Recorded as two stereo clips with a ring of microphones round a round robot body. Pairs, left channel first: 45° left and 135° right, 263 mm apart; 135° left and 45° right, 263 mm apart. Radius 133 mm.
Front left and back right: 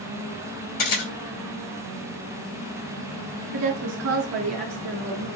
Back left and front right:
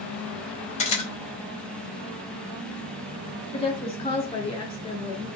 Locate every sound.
0.8 s a camera shutter: 70° left, 2.5 m
3.5 s a woman speaking: 155° right, 1.6 m